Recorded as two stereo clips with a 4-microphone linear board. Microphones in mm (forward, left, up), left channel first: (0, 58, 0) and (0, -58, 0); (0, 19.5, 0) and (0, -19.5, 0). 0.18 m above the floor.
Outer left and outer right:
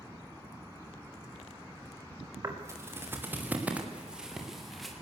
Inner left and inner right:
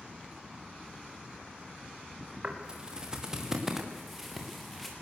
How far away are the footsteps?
About 5 m.